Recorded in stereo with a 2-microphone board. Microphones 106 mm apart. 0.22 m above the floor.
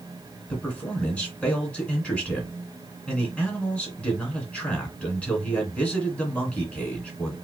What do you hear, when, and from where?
0.5 s a man speaking: 10° left (ahead or behind), 2 m